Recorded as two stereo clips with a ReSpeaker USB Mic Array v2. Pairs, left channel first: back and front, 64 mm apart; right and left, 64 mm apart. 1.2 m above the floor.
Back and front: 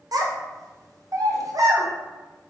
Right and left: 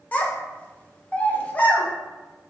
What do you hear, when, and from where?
0.1 s a child speaking: 25° right, 0.5 m